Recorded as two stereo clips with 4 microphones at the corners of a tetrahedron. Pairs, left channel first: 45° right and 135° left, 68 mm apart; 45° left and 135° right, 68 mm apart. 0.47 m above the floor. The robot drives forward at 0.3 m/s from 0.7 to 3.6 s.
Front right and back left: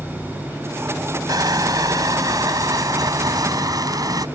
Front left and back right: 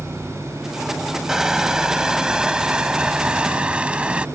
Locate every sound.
1.3 s crushing: 145° left; by 4.3 s 150° left